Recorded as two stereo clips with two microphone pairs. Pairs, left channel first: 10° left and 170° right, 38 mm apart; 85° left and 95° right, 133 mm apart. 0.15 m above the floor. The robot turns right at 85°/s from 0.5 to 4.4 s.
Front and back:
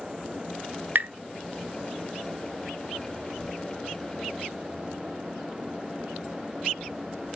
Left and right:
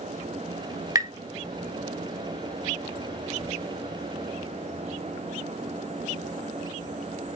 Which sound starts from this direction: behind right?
Tapping, at 0.9 s.